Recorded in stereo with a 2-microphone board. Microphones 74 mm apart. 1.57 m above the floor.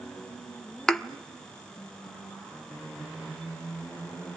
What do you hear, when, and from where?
0.9 s a thud: 5° left (ahead or behind), 1.2 m